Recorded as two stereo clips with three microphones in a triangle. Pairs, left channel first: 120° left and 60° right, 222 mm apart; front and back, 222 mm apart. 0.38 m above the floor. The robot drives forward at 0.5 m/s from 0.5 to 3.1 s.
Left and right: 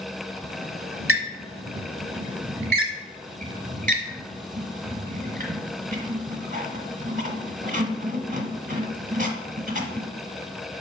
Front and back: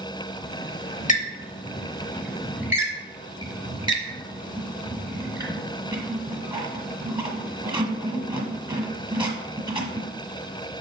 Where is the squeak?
40° right, 1.3 m; by 10.1 s 115° right, 1.0 m.